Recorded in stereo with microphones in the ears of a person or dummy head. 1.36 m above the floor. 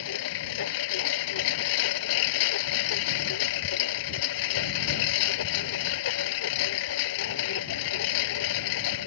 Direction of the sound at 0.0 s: 70° left (ahead or behind).